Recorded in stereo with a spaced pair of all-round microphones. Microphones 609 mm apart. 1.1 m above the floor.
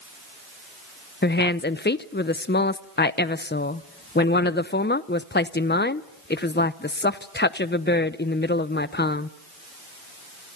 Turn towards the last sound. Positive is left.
turn(degrees=20)  # may be behind; listen again after turning